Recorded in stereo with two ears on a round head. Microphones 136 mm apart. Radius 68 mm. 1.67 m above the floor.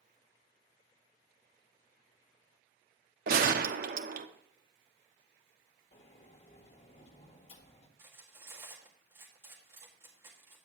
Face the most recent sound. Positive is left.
turn(degrees=-15)  # may be behind; listen again after turning